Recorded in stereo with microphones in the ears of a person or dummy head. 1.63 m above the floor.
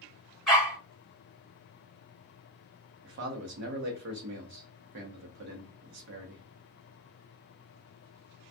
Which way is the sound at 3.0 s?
60° right (ahead or behind).